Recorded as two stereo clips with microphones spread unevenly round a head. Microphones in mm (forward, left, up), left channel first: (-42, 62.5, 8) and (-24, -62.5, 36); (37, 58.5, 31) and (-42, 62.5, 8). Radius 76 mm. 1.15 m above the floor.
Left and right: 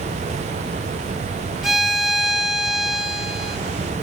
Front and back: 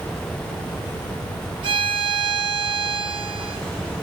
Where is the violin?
170° right, 1.2 m.